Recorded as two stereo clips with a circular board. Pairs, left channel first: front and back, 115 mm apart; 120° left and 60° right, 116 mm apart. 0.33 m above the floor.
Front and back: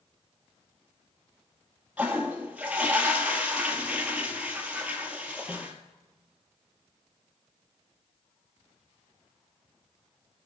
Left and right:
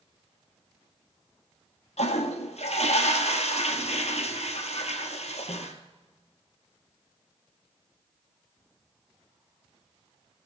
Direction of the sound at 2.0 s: 100° left.